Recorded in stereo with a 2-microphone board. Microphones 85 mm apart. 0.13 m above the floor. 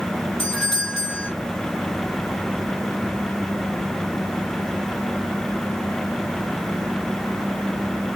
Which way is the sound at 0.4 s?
5° left (ahead or behind).